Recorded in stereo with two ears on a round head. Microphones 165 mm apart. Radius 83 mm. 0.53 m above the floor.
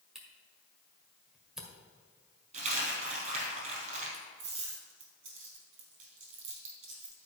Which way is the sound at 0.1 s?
5° right (ahead or behind).